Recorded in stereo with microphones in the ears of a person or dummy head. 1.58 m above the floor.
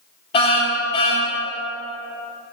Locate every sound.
0.3 s a car horn: 35° left (ahead or behind), 4.5 m